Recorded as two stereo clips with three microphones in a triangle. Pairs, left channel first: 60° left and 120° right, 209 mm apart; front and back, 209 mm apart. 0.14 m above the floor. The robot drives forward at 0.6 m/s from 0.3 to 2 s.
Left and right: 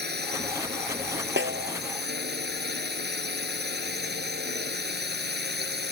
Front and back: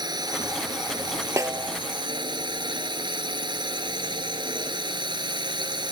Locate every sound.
0.0 s a drone: 115° right
1.4 s a snare drum: 105° right; by 1.8 s 110° right